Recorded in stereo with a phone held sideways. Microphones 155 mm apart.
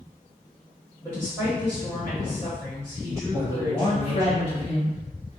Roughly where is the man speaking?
Left.